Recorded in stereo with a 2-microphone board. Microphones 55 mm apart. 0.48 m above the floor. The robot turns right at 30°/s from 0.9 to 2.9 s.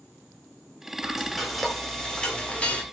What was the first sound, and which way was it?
Frying, 15° right.